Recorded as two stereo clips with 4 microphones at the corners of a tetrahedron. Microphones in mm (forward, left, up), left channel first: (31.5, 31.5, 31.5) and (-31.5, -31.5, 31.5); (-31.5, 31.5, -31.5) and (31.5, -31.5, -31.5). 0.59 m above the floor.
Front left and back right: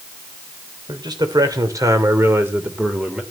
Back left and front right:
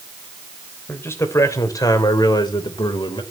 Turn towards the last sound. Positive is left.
turn(degrees=145)